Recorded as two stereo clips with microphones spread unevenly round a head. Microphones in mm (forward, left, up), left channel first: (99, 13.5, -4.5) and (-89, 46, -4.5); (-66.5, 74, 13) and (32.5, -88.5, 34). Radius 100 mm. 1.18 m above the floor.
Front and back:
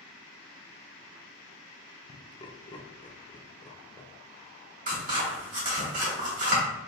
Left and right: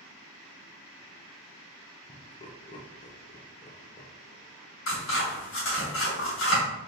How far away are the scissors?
About 1.9 m.